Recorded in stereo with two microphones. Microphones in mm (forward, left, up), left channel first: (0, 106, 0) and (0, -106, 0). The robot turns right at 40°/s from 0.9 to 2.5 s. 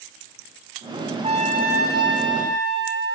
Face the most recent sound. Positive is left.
turn(degrees=-100)